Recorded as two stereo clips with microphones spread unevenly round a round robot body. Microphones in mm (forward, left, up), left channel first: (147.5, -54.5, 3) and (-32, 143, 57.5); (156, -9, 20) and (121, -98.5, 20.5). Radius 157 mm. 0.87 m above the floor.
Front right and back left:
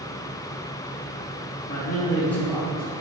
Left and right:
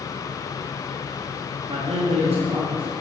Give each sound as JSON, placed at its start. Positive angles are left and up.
{"t": 1.7, "sound": "a man speaking", "azimuth_deg": -100, "distance_m": 1.2}